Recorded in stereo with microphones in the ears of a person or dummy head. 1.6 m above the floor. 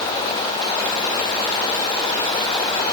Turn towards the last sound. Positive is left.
No sound to turn to.